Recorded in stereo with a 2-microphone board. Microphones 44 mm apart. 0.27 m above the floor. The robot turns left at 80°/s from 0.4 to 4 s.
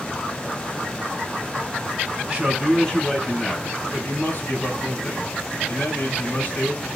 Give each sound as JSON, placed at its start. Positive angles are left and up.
{"t": 2.3, "sound": "a man speaking", "azimuth_deg": -140, "distance_m": 2.5}